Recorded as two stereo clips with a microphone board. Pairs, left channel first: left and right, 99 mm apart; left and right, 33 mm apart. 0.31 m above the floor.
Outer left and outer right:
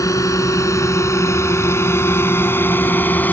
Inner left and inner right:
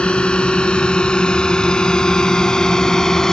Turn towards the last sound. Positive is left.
turn(degrees=20)  # may be behind; listen again after turning